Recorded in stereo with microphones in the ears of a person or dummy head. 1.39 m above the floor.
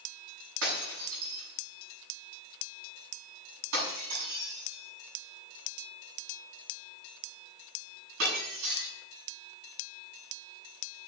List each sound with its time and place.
0.6 s breaking glass: 75° right (ahead or behind), 7.5 m